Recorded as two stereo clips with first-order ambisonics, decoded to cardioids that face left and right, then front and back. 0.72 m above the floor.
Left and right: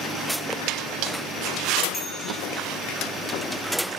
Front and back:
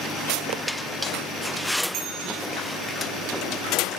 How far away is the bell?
About 2.5 m.